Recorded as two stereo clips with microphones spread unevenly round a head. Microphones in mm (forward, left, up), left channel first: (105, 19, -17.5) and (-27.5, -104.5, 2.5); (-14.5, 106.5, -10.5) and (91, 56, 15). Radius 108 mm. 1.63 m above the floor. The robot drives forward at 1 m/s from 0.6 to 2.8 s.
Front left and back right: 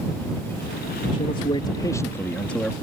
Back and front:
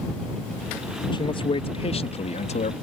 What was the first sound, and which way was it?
A man speaking, 105° left.